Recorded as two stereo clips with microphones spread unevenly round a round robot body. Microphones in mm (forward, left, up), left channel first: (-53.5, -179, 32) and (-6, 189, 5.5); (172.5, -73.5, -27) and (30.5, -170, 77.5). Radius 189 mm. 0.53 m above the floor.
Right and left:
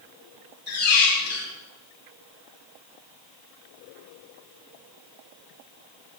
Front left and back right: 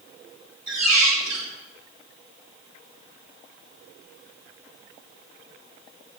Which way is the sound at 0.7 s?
160° right.